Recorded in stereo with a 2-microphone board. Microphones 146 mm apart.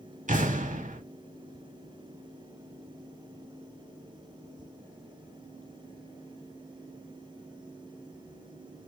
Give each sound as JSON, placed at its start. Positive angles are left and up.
{"t": 0.3, "sound": "an explosion", "side_deg": -65, "distance_m": 0.8}